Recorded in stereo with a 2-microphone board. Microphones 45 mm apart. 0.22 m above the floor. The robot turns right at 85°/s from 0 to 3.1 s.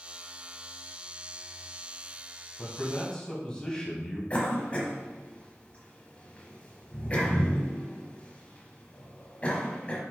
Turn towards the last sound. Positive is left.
turn(degrees=25)  # may be behind; listen again after turning